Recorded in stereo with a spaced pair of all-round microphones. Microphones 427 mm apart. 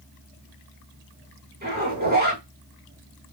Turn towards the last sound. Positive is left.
turn(degrees=-20)  # may be behind; listen again after turning